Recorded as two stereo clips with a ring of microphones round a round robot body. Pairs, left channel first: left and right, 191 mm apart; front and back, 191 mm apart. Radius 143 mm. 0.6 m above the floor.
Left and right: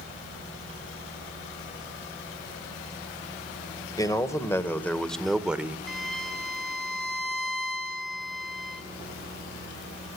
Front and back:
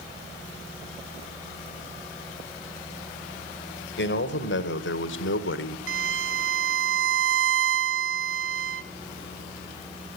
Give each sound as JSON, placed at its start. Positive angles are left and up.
{"t": 4.0, "sound": "a man speaking", "azimuth_deg": 20, "distance_m": 2.5}
{"t": 5.9, "sound": "a violin", "azimuth_deg": 180, "distance_m": 1.3}